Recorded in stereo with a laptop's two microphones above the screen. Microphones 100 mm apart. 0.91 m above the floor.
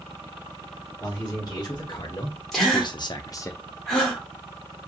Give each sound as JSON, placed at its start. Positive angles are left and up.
{"t": 1.0, "sound": "a man speaking", "side_deg": 40, "distance_m": 1.4}
{"t": 2.5, "sound": "a gasp", "side_deg": 0, "distance_m": 1.0}